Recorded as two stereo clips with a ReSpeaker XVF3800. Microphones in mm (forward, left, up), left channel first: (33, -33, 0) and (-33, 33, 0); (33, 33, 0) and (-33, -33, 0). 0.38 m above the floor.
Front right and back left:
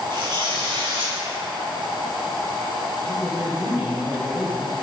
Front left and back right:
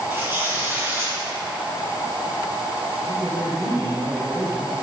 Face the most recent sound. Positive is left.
turn(degrees=-150)